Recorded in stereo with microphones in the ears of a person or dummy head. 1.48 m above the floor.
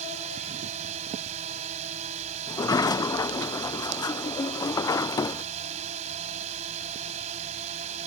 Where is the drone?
35° right (ahead or behind).